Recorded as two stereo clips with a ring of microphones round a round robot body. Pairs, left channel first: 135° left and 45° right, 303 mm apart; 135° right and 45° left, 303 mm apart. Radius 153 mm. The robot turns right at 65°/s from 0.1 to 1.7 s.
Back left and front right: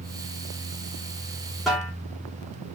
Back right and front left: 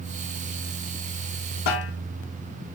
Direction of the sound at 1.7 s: 135° right.